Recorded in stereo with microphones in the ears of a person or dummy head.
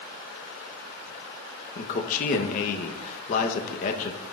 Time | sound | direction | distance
1.8 | a man speaking | 40° left (ahead or behind) | 1.0 m